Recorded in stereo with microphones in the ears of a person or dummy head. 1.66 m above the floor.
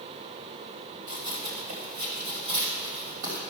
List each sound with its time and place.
1.1 s running footsteps: 45° right (ahead or behind), 2.5 m; by 3.4 s 65° right (ahead or behind), 3.5 m